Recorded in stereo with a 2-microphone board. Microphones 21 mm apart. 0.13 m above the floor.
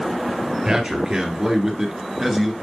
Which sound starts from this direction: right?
A man speaking, at 0.7 s.